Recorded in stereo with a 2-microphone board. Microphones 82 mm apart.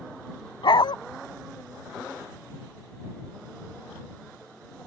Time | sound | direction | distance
0.6 | a dog barking | 85° left | ?